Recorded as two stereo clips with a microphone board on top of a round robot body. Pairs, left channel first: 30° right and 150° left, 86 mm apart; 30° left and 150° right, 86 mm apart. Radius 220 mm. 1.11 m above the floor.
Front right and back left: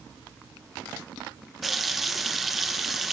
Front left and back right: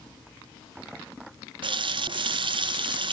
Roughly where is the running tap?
Behind right.